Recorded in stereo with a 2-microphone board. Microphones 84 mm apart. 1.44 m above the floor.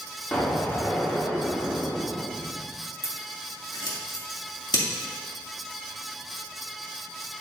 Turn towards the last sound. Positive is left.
turn(degrees=60)  # may be behind; listen again after turning